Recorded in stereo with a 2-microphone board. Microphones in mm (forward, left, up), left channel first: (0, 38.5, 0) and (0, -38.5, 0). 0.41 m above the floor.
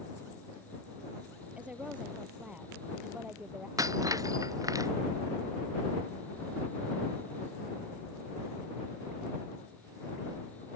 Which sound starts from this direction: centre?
A woman speaking, at 1.6 s.